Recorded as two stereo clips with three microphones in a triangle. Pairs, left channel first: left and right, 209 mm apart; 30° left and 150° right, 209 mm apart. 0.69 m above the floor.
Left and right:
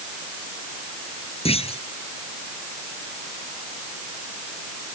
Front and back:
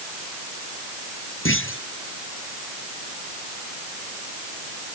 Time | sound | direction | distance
1.4 | a clunk | 30° left | ?